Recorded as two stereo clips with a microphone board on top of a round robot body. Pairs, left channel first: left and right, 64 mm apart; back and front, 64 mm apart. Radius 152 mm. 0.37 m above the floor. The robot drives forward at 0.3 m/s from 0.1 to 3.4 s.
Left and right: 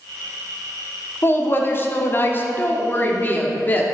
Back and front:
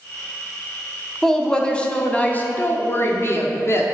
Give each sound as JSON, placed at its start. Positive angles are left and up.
{"t": 1.2, "sound": "a woman speaking", "azimuth_deg": 100, "distance_m": 1.0}